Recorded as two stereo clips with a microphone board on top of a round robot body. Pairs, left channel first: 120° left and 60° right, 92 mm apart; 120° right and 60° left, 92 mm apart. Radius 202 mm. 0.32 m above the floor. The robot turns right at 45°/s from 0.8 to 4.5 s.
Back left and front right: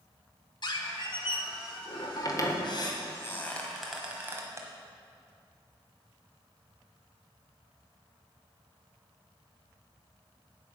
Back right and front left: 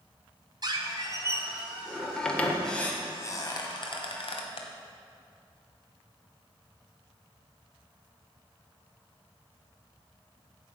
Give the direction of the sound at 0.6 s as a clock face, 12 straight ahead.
9 o'clock.